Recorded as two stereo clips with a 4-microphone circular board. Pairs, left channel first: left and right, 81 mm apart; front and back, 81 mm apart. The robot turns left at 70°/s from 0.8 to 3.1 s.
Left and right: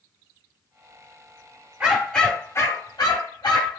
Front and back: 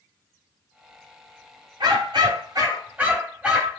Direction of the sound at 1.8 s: 165° right.